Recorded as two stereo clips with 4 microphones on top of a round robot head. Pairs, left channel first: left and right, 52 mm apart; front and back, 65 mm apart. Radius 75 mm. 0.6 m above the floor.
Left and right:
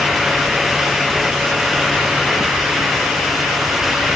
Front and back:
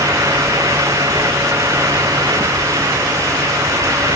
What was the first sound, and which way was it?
Only background noise.